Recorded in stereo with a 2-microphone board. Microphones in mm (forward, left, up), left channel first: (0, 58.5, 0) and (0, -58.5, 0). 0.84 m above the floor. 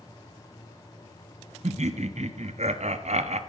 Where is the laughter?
65° right (ahead or behind), 1.1 m.